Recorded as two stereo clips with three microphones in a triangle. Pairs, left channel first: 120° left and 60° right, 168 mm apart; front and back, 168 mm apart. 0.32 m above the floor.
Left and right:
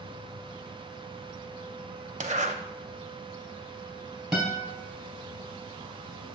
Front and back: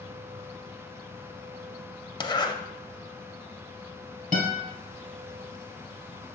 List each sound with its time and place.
2.2 s a zipper: 50° right, 0.5 m
4.3 s a guitar: 145° right, 2.5 m